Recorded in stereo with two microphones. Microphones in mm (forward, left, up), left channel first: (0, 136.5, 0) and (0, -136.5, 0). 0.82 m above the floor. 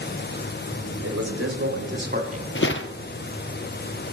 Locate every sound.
1.0 s a man speaking: 65° right (ahead or behind), 3 m; by 2.5 s 25° right (ahead or behind), 2.5 m
2.5 s footsteps: 45° left (ahead or behind), 1.1 m